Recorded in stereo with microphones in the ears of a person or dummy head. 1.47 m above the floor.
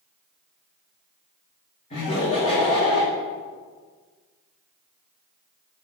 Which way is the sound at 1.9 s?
35° left (ahead or behind).